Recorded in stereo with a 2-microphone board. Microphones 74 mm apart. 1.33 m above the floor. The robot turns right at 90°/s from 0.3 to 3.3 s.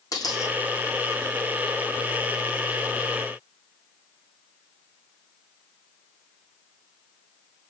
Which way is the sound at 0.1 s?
50° left (ahead or behind).